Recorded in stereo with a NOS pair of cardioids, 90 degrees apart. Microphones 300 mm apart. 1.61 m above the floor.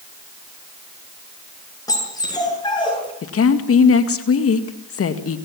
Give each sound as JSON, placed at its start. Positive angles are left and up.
{"t": 1.9, "sound": "a dog barking", "azimuth_deg": 10, "distance_m": 7.5}
{"t": 3.2, "sound": "a woman speaking", "azimuth_deg": 50, "distance_m": 2.0}